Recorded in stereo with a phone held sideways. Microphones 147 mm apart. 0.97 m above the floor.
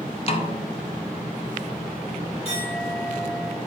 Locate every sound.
0.3 s a snare drum: 40° left (ahead or behind), 0.6 m
2.5 s a clink: 40° left (ahead or behind), 2.0 m